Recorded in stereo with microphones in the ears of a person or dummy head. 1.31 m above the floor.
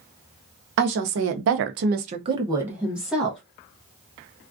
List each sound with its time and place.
0.8 s a woman speaking: 55° right (ahead or behind), 0.7 m; by 3.4 s centre (ahead or behind), 1.0 m